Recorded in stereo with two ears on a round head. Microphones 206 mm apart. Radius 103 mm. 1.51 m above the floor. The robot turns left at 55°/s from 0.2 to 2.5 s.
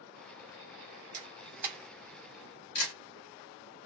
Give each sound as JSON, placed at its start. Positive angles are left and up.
{"t": 1.1, "sound": "a camera shutter", "side_deg": -35, "distance_m": 2.5}